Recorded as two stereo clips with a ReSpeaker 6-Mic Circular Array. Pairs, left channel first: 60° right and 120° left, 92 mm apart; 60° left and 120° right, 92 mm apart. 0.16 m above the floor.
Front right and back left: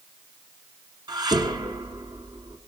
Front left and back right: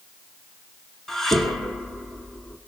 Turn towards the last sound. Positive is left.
turn(degrees=145)